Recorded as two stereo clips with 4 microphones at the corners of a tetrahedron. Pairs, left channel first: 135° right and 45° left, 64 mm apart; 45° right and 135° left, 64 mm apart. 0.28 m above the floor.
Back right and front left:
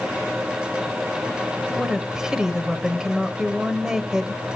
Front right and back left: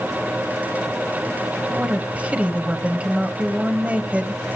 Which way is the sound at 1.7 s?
110° left.